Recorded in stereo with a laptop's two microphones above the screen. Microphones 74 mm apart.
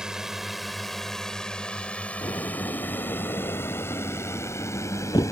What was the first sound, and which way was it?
A drone, 10° right (ahead or behind).